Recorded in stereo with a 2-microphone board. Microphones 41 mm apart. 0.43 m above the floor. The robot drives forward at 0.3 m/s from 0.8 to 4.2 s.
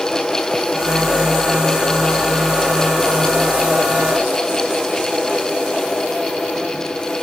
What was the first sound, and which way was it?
Only background noise.